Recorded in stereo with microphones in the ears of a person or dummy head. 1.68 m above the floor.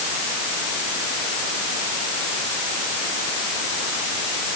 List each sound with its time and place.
Only background noise.